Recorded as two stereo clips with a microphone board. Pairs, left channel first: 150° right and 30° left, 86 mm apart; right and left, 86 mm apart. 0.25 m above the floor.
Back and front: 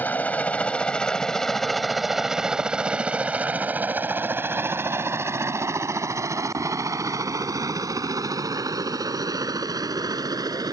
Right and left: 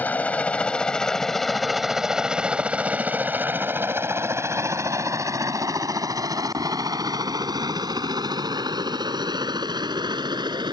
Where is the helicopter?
125° right; by 10.8 s 65° left.